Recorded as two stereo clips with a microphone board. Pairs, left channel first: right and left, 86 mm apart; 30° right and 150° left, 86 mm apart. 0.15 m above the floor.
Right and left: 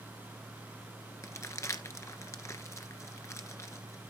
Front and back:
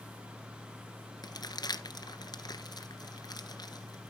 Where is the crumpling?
45° right, 1.2 m.